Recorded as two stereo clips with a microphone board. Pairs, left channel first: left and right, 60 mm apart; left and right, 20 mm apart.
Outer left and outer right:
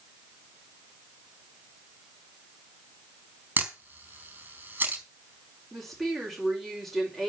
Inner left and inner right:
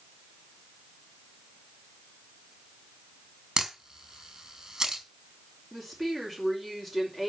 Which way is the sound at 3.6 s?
30° right (ahead or behind).